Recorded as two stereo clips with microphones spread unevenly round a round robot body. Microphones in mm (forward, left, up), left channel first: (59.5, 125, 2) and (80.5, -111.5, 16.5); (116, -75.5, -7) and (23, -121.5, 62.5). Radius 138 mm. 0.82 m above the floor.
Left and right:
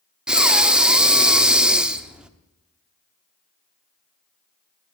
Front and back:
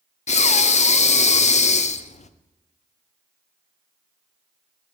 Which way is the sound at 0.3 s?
Straight ahead.